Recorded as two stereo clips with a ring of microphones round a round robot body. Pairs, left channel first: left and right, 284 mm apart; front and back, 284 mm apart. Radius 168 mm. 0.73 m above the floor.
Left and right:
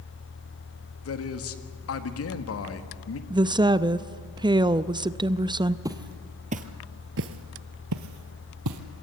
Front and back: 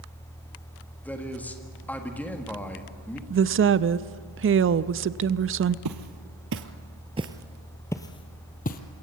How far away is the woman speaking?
About 0.6 m.